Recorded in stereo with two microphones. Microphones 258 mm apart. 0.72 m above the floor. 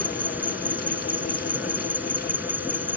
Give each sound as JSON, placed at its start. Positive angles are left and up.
{"t": 0.0, "sound": "an insect", "side_deg": -5}